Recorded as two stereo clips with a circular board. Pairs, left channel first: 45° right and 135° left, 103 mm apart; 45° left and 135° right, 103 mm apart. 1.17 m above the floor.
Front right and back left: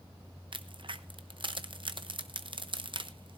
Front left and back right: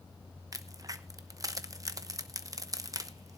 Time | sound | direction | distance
0.5 | a crack | 170° left | 0.8 m